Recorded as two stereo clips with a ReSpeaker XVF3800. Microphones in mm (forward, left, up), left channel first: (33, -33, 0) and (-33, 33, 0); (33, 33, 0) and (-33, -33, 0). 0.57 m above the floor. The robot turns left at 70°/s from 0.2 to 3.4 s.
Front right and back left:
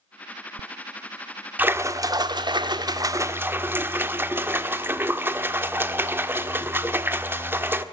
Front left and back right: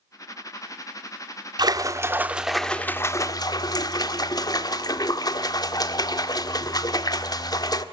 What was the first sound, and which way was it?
A splash, 160° right.